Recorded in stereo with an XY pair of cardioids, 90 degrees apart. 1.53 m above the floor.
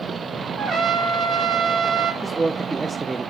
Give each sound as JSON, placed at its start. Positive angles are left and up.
{"t": 0.6, "sound": "a trumpet", "azimuth_deg": -65, "distance_m": 1.3}
{"t": 2.2, "sound": "a man speaking", "azimuth_deg": -20, "distance_m": 0.6}